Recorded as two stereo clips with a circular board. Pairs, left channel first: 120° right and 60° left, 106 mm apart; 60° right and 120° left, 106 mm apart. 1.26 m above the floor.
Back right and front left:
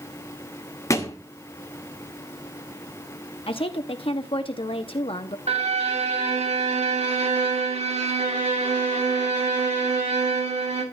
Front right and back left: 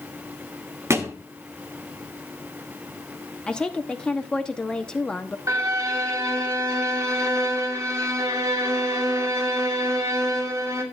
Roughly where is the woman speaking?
Behind right.